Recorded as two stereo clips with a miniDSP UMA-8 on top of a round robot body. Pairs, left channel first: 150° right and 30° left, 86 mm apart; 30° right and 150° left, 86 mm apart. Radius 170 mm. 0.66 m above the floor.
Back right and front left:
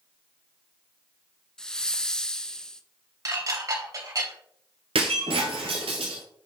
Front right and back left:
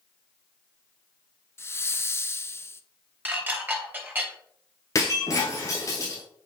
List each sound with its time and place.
1.6 s a hiss: 70° right, 1.0 m
3.2 s dishes clattering: 80° left, 2.5 m
5.0 s breaking glass: 20° left, 0.8 m